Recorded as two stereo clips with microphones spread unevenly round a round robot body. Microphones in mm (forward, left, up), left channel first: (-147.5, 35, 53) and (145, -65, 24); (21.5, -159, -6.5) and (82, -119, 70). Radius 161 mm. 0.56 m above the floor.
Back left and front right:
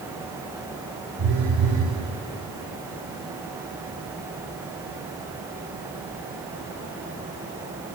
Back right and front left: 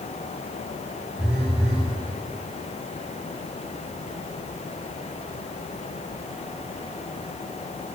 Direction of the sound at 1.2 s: 35° right.